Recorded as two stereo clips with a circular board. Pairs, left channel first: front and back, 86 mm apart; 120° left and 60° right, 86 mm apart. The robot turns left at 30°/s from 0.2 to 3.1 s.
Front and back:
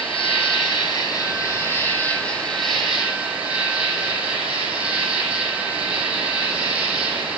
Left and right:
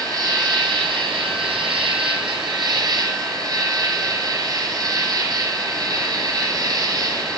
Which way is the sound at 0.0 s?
15° right.